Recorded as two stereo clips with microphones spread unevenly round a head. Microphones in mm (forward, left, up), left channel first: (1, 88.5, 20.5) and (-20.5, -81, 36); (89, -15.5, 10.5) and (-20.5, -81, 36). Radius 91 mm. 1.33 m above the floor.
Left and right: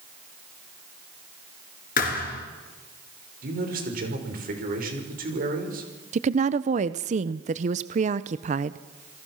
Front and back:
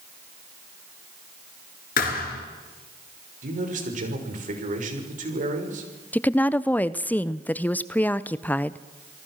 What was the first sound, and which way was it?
A thud, 40° left.